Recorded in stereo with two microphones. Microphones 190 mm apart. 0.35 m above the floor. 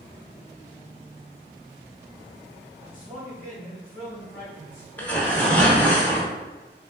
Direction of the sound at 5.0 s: 10° left (ahead or behind).